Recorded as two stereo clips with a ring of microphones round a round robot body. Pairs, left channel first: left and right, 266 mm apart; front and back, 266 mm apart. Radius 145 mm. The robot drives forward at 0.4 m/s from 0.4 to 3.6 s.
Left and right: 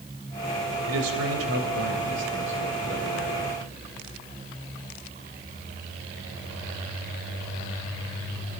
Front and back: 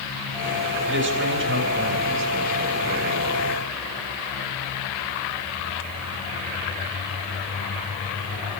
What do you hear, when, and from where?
0.9 s a man speaking: 135° right, 3.5 m; by 3.6 s 145° right, 4.5 m